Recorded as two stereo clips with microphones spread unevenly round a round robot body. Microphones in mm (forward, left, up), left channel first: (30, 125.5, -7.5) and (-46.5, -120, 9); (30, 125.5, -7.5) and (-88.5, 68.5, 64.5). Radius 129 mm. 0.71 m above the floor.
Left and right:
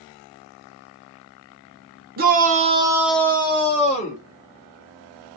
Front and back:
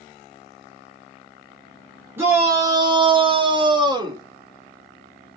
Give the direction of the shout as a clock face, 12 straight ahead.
2 o'clock.